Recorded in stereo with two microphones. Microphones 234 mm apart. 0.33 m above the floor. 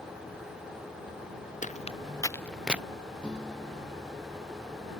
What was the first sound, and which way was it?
Footsteps, 35° left (ahead or behind).